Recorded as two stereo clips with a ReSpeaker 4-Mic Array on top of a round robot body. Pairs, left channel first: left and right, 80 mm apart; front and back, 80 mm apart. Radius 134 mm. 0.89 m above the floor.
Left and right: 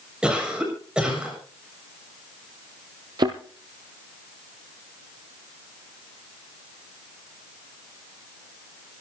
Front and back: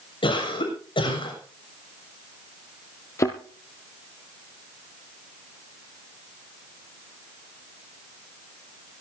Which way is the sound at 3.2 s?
55° right.